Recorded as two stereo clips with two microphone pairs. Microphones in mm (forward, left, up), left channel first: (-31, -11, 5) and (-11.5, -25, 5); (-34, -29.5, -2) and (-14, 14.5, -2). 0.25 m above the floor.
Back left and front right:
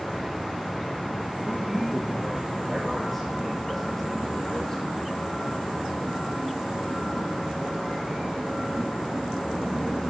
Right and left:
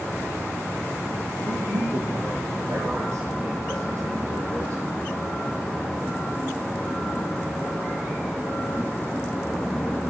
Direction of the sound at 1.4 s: 50° left.